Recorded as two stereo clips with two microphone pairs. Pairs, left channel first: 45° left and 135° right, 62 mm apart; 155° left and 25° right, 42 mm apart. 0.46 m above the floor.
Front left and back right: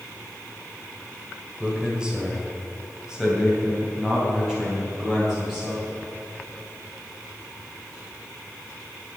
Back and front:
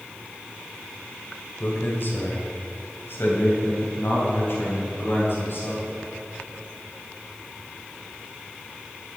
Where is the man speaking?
150° left, 1.5 m; by 5.9 s 140° left, 3.5 m.